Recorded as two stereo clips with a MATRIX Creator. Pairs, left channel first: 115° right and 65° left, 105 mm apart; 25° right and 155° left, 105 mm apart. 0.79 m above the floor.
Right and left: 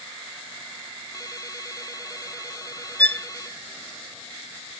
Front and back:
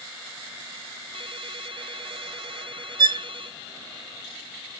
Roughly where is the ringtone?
Behind.